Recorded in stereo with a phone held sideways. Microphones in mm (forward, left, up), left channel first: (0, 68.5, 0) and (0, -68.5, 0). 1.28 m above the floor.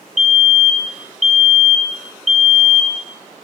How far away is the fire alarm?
About 1.9 m.